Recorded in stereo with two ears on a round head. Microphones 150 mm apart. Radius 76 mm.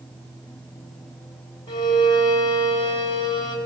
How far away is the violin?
About 6.5 m.